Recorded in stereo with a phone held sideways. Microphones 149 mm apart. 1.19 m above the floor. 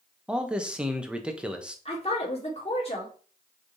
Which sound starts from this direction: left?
A woman speaking, at 1.9 s.